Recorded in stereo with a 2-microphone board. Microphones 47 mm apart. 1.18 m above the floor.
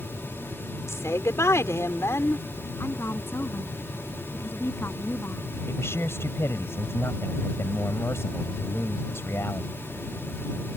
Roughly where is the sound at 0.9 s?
Left.